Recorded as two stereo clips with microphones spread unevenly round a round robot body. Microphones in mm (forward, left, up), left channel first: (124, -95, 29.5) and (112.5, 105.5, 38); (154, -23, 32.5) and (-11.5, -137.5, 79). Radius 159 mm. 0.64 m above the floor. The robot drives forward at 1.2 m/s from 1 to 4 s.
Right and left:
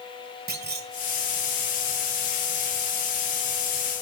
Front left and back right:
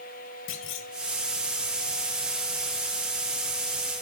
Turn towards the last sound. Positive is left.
turn(degrees=145)